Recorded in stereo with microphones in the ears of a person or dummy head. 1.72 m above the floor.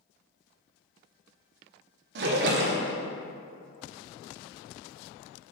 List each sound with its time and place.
2.1 s a splash: 65° right (ahead or behind), 1.2 m